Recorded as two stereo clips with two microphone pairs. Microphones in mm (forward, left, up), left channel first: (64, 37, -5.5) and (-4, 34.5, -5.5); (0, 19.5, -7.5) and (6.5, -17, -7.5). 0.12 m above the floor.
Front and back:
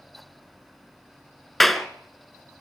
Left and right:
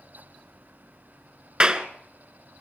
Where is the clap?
75° right, 1.0 m.